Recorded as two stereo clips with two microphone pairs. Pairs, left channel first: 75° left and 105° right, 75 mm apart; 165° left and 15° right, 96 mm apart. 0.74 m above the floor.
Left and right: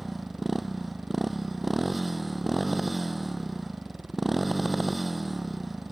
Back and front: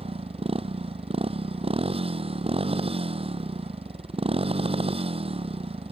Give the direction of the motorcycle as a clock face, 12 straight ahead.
1 o'clock.